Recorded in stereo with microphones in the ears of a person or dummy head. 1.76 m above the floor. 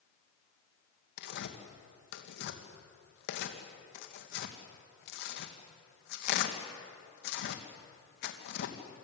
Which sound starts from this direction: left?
Tearing paper, at 1.2 s.